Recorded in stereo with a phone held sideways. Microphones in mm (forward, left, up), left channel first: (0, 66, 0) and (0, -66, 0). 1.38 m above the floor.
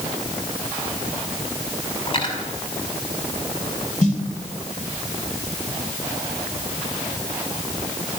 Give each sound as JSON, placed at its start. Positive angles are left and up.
{"t": 2.1, "sound": "cutlery clinking", "side_deg": 40, "distance_m": 6.0}
{"t": 4.0, "sound": "a snare drum", "side_deg": 65, "distance_m": 2.5}